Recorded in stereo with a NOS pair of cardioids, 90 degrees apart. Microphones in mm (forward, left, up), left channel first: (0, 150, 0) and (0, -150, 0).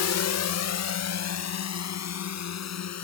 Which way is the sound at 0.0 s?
60° left.